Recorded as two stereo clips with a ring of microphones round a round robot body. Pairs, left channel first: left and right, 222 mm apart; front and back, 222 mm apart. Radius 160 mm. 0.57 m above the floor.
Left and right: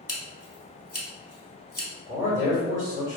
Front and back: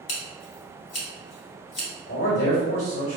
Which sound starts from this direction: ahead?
Scissors, at 0.1 s.